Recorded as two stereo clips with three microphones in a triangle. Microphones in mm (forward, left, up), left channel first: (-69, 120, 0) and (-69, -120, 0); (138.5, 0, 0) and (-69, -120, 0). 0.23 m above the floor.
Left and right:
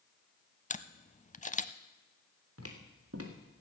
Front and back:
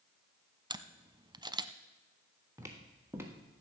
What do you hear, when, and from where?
0.7 s a camera shutter: 145° left, 0.6 m
2.6 s footsteps: 70° right, 2.5 m; by 3.6 s 65° right, 2 m